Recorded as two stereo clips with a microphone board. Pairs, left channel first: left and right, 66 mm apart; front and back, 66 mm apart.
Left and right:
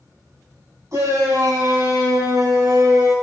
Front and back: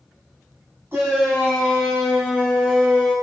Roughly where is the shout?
Behind right.